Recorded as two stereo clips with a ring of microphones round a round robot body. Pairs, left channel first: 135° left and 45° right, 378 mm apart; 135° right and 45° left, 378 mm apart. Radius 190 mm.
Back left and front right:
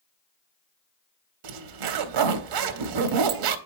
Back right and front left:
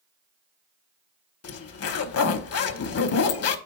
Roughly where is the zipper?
Right.